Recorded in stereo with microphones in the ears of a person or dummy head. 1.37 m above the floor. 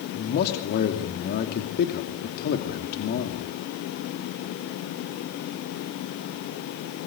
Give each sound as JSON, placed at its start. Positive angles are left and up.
{"t": 0.1, "sound": "a man speaking", "side_deg": 60, "distance_m": 2.5}